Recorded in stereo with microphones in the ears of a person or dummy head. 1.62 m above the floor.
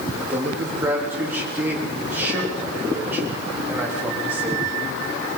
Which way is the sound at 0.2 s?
10° right (ahead or behind).